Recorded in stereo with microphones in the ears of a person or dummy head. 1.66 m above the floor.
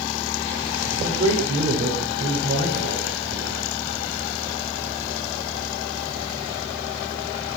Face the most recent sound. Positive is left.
turn(degrees=-40)  # may be behind; listen again after turning